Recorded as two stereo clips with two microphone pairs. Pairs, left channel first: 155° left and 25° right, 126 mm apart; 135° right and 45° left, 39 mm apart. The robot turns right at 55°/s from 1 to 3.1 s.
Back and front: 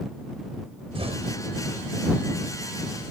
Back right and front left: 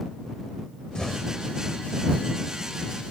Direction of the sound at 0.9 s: 65° right.